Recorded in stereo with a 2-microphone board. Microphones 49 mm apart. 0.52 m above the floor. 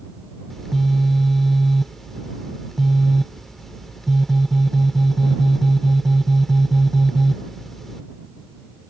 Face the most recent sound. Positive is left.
turn(degrees=5)  # may be behind; listen again after turning